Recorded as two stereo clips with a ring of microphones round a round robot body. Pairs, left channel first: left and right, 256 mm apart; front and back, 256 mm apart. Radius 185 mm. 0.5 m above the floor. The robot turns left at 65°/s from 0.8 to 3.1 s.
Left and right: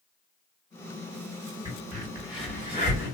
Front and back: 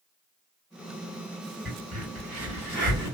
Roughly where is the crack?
Behind right.